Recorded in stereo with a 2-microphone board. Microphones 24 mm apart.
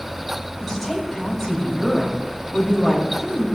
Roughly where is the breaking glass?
No breaking glass in this recording.